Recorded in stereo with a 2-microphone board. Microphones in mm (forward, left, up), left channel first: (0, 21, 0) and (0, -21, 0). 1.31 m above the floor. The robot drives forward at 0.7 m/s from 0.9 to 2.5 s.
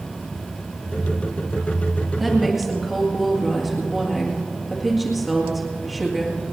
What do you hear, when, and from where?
2.2 s a woman speaking: 5° right (ahead or behind), 1.9 m